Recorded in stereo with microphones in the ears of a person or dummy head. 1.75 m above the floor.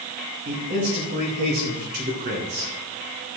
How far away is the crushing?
I don't hear crushing.